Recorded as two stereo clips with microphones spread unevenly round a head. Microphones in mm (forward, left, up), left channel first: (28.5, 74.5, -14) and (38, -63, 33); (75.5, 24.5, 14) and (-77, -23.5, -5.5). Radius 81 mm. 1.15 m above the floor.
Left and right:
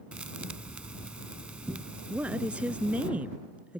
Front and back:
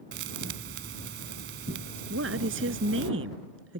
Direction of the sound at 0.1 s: 155° right.